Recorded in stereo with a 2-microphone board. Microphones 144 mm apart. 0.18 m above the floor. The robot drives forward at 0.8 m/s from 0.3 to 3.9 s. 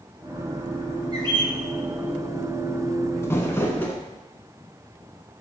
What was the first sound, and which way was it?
A bird, 30° right (ahead or behind).